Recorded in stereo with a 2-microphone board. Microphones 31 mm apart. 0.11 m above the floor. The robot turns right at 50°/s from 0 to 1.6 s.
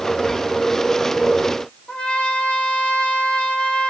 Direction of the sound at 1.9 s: 35° left (ahead or behind).